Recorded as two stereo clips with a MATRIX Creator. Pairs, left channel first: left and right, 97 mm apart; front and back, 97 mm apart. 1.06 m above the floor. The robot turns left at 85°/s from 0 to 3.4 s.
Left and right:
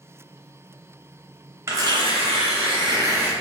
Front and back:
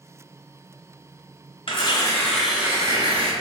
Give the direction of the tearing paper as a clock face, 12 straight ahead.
1 o'clock.